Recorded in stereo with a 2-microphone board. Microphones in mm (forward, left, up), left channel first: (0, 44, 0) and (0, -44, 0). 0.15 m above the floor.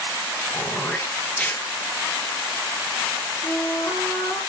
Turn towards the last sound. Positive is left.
turn(degrees=20)  # may be behind; listen again after turning